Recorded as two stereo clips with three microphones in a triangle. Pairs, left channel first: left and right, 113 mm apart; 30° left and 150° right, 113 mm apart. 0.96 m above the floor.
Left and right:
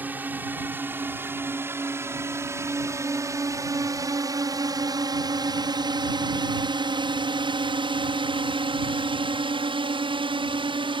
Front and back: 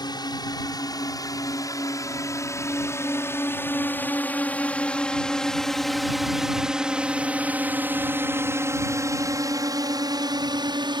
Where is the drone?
15° right; by 11.0 s 115° right.